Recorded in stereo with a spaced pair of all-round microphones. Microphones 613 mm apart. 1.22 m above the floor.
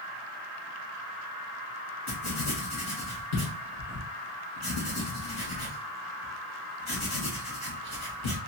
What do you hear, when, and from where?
2.1 s writing: 55° left (ahead or behind), 2 m